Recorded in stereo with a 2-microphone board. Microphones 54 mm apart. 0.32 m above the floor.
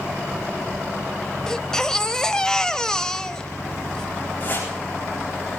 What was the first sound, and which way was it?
A baby crying, 10° left (ahead or behind).